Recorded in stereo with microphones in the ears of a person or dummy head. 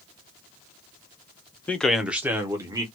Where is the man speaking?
10° left (ahead or behind), 0.6 m; by 2.8 s 20° right (ahead or behind), 1.2 m.